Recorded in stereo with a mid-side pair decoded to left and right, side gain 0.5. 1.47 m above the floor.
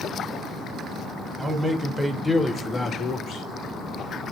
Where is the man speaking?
15° right, 1.4 m; by 3.5 s 65° left, 1.0 m.